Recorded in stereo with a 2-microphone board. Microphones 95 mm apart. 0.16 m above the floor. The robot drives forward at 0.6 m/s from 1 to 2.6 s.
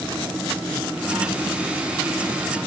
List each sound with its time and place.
Only background noise.